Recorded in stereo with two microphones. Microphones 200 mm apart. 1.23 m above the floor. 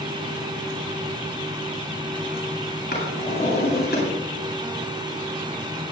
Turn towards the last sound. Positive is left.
turn(degrees=55)  # may be behind; listen again after turning